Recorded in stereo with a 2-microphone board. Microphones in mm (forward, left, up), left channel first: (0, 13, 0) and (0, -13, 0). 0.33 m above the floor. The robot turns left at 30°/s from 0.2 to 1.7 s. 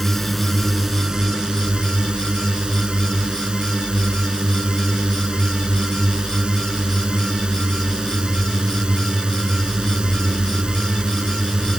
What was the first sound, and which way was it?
A drone, 5° left.